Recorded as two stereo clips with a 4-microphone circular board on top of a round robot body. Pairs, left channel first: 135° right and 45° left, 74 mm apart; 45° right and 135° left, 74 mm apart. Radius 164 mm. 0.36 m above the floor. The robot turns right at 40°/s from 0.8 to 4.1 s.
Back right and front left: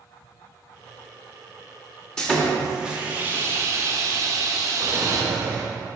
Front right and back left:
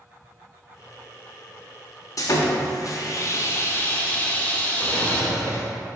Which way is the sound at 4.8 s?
Straight ahead.